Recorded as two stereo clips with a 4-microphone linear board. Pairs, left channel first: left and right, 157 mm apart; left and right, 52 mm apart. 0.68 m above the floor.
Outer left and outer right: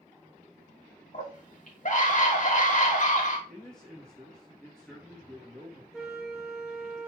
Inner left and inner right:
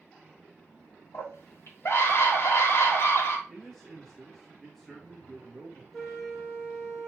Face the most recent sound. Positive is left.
turn(degrees=-5)  # may be behind; listen again after turning